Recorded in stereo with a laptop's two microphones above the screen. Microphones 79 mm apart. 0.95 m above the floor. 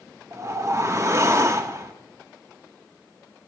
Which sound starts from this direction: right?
A whoosh, at 0.3 s.